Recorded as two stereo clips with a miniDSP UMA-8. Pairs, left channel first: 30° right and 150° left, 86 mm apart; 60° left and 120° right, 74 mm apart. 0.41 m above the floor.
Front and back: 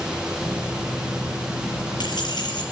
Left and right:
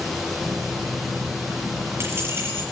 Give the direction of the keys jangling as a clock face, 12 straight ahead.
3 o'clock.